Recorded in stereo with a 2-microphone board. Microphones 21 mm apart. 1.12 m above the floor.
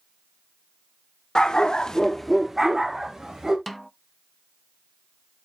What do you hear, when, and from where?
1.4 s a dog barking: 35° left (ahead or behind), 1.3 m; by 3.6 s 20° right (ahead or behind), 2.5 m
3.7 s a snare drum: centre (ahead or behind), 0.6 m